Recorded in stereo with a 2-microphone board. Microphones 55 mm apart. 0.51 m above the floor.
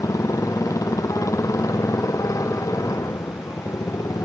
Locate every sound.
0.0 s a motorcycle: 85° left